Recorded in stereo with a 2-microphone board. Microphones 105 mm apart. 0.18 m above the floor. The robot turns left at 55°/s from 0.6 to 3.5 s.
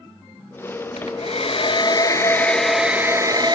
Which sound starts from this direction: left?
A hair dryer, at 1.0 s.